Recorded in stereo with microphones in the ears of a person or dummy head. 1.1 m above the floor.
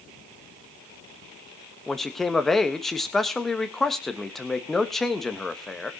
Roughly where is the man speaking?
Centre.